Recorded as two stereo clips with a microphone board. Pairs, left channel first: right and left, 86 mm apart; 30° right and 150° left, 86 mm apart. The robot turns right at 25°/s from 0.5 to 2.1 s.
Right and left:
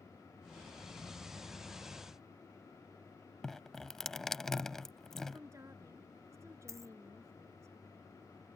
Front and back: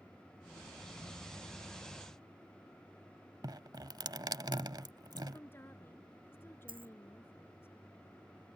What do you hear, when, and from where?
3.4 s dripping: 175° right
5.3 s a woman speaking: 35° left
6.7 s a dropped coin: 145° left